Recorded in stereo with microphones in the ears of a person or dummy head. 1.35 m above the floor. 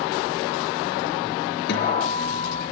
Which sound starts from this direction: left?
A guitar, at 1.7 s.